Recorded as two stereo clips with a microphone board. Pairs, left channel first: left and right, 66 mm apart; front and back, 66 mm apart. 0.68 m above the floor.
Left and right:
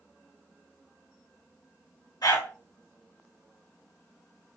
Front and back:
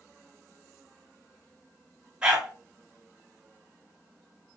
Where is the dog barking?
105° left, 2.0 m.